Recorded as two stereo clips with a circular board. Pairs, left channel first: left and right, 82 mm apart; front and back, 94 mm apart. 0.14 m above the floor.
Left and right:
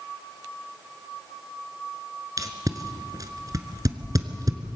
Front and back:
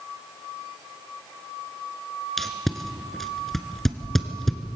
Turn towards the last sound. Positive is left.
turn(degrees=-85)